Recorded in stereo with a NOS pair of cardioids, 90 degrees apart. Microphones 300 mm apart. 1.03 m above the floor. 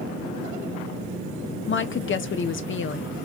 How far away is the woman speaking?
About 0.7 m.